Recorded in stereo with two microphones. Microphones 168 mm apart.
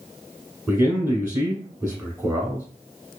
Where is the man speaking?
10° right (ahead or behind), 1.2 m.